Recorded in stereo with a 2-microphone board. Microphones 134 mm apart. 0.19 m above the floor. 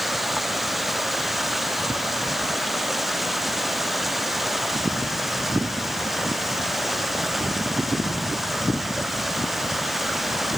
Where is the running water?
Centre (ahead or behind).